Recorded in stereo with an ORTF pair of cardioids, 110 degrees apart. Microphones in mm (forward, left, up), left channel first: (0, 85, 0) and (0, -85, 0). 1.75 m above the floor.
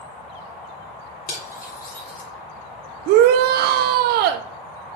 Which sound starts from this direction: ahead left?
Cutlery clinking, at 1.3 s.